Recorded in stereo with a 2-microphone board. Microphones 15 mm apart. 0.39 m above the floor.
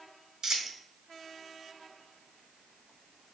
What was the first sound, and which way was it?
A dropped coin, 35° right (ahead or behind).